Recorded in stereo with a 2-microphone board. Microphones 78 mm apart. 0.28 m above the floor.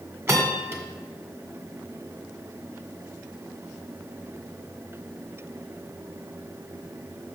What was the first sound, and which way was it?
A bell, 35° right (ahead or behind).